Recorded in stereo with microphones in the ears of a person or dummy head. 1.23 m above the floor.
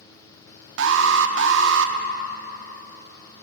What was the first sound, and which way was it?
An alarm, 75° right (ahead or behind).